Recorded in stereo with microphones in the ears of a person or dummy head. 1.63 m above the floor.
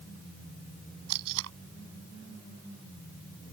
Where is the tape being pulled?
80° right.